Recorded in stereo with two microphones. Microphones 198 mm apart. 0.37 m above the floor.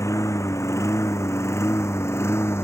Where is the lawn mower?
15° left (ahead or behind); by 2.6 s 10° left (ahead or behind).